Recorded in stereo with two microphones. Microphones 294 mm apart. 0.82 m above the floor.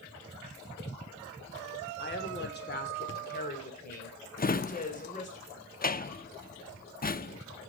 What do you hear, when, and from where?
2.0 s a woman speaking: 35° left (ahead or behind), 2.5 m; by 5.4 s 25° left (ahead or behind), 4.5 m
4.4 s a drawer: 30° left (ahead or behind), 0.5 m